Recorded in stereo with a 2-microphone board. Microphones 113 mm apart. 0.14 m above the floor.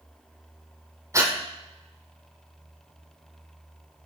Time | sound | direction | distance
1.1 | breathing | 30° right (ahead or behind) | 1.9 m